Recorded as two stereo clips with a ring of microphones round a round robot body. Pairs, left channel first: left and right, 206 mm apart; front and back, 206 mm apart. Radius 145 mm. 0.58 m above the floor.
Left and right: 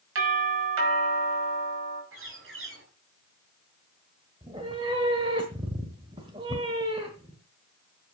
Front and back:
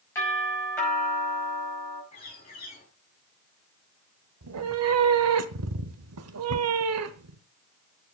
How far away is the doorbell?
About 5.5 m.